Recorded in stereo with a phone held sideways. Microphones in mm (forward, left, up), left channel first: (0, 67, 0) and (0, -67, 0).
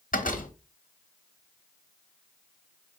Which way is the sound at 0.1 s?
85° left.